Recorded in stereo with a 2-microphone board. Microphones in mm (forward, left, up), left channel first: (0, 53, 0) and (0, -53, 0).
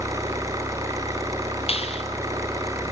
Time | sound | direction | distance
0.0 | an engine running | 30° right (ahead or behind) | 4.5 m
1.7 | a clap | 65° left (ahead or behind) | 3 m